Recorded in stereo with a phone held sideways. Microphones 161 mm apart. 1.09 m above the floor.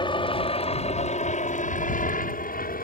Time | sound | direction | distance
0.0 | a helicopter | 30° left (ahead or behind) | ?